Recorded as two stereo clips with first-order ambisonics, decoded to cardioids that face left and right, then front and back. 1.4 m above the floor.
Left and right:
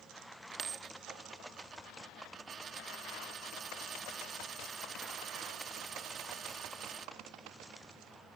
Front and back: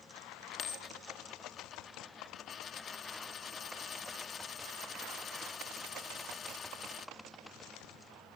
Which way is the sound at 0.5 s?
45° right.